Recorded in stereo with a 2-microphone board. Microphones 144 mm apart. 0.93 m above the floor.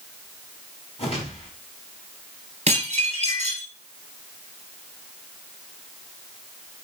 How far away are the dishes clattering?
About 4 m.